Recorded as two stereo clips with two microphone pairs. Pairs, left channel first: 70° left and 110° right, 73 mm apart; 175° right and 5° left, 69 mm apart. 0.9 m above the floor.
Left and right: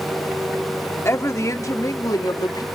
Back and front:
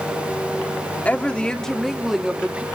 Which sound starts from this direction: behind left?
A woman speaking, at 1.1 s.